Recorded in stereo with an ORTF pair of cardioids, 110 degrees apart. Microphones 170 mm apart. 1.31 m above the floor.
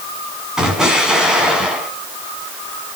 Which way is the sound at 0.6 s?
5° right.